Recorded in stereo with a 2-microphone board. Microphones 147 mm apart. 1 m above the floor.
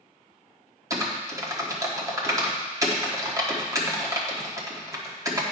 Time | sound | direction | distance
0.9 | typing on a keyboard | 20° right (ahead or behind) | 1.3 m